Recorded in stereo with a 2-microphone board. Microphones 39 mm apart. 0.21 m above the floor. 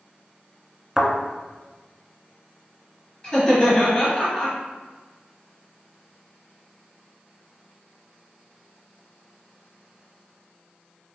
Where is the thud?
15° right (ahead or behind), 0.7 m.